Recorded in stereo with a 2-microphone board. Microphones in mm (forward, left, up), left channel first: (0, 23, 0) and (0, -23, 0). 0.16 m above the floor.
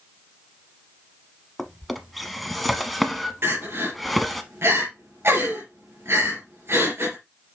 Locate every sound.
1.6 s a drawer: centre (ahead or behind), 0.9 m
3.4 s crying: 65° right (ahead or behind), 3.5 m